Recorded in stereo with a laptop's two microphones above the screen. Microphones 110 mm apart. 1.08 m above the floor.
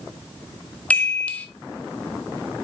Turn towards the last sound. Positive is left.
turn(degrees=15)  # may be behind; listen again after turning